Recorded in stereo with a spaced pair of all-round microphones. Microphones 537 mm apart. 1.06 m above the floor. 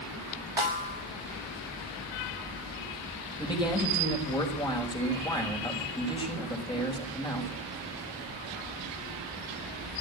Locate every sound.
0.6 s a snare drum: 60° right (ahead or behind), 2.5 m
3.4 s a man speaking: 10° left (ahead or behind), 6 m